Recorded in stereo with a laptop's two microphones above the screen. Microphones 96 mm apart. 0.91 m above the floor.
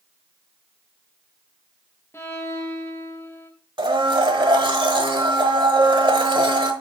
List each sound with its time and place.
2.1 s a violin: 25° left (ahead or behind), 1.1 m
3.8 s a blender: 60° right (ahead or behind), 1.2 m